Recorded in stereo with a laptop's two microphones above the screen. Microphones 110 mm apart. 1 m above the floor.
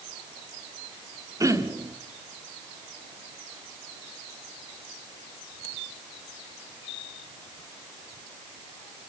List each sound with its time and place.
1.4 s throat clearing: 30° right (ahead or behind), 1.3 m